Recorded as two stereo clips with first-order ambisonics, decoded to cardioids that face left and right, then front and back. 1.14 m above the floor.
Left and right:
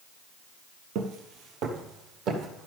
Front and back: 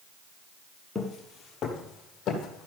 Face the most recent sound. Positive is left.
turn(degrees=-50)